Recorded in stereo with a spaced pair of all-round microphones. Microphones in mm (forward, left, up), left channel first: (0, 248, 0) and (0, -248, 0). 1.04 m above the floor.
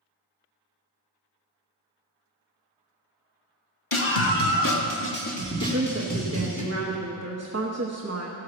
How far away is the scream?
About 1.3 m.